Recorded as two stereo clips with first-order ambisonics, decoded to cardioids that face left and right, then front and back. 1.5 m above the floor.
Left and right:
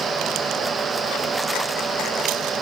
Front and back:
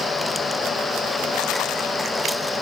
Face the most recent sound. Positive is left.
No sound to turn to.